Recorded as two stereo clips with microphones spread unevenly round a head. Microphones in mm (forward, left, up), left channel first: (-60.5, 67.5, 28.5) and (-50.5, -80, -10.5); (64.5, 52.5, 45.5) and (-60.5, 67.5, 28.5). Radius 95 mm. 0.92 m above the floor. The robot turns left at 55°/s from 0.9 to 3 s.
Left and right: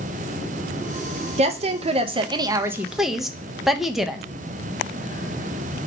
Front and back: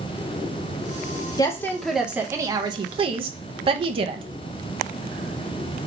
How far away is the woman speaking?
About 0.6 m.